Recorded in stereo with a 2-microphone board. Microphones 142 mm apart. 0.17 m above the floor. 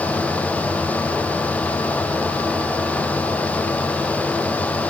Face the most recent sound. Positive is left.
No sound to turn to.